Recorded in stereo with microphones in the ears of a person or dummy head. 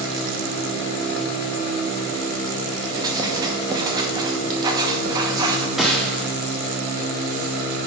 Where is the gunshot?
Centre (ahead or behind), 0.9 m.